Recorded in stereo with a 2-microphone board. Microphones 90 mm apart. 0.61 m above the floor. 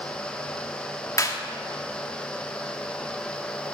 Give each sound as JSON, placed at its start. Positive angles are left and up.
{"t": 1.2, "sound": "a clap", "side_deg": 40, "distance_m": 1.1}